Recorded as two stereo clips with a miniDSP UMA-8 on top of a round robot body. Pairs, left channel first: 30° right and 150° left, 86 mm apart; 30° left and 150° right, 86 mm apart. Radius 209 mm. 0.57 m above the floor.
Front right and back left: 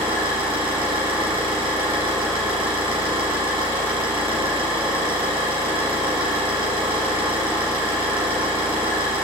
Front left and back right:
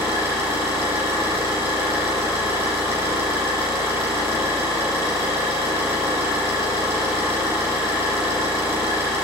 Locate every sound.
0.0 s an engine running: 150° left, 5.5 m